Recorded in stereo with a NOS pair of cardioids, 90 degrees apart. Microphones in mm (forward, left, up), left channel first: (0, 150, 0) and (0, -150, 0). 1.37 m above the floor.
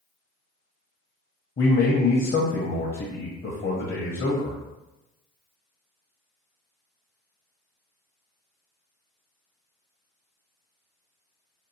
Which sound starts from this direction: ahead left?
A man speaking, at 1.6 s.